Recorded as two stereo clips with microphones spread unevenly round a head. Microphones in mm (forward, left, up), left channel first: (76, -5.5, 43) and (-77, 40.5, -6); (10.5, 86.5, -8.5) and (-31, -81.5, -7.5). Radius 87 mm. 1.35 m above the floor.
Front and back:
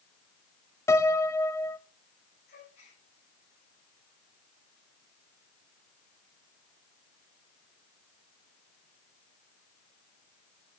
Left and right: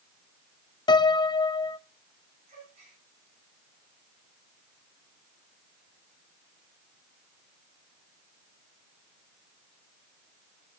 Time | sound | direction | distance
0.9 | a piano | 25° left | 0.6 m
2.5 | a gasp | 50° right | 9.5 m